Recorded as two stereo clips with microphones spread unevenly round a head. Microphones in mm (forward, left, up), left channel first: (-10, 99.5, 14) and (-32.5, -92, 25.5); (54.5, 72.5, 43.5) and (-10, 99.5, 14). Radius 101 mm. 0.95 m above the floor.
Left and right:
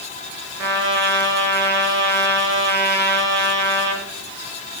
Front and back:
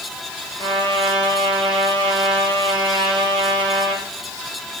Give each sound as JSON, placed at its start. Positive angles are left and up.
{"t": 0.6, "sound": "a trumpet", "azimuth_deg": -85, "distance_m": 5.0}